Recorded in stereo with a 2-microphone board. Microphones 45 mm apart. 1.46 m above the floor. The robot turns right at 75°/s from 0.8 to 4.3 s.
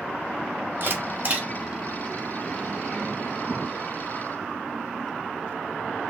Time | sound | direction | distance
0.8 | a camera shutter | 45° right (ahead or behind) | 1.1 m